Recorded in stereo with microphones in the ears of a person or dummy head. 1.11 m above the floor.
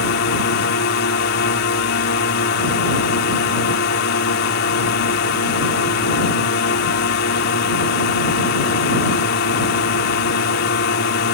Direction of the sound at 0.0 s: 55° left (ahead or behind).